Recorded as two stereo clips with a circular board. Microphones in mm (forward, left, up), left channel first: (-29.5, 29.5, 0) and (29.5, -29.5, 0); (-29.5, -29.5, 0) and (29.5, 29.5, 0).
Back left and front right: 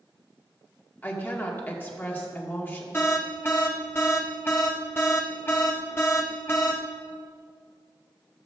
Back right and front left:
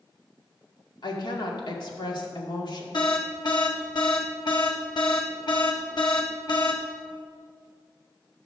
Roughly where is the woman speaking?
Behind.